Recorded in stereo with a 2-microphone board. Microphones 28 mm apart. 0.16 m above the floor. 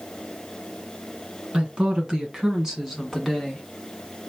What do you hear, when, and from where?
1.5 s a woman speaking: 35° right (ahead or behind), 1.9 m; by 3.6 s 5° left (ahead or behind), 2 m